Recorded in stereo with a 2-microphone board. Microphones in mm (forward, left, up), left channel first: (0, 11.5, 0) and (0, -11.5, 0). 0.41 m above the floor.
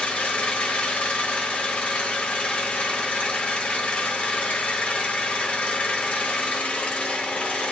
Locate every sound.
0.0 s an engine running: 65° left (ahead or behind), 1.0 m